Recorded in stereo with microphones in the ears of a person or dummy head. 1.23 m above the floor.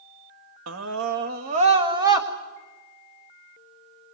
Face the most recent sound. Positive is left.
turn(degrees=-15)  # may be behind; listen again after turning